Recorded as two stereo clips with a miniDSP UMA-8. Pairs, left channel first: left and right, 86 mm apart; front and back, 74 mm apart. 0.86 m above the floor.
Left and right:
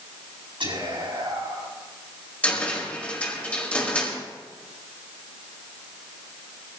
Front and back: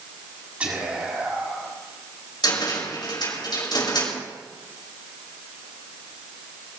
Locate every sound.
0.6 s whispering: 110° right, 7 m
2.4 s a cupboard door: 15° left, 5 m